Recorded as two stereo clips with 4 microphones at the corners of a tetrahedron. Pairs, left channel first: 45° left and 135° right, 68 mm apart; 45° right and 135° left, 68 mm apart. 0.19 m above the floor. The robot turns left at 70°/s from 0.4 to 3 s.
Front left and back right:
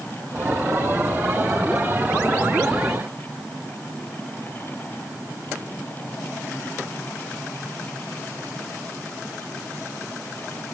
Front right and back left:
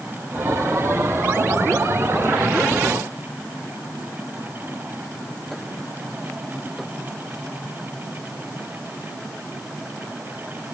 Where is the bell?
I don't hear a bell.